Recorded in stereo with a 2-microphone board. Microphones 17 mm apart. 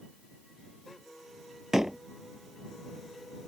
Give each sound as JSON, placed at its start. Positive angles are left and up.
{"t": 1.7, "sound": "a door slam", "side_deg": -30}